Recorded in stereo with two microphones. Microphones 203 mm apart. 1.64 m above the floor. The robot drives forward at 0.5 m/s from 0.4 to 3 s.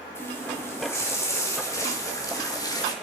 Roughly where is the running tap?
Centre.